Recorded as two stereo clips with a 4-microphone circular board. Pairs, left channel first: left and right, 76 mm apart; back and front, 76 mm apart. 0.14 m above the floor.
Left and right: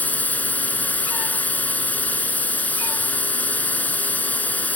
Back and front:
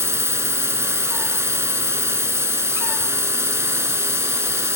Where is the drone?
35° left.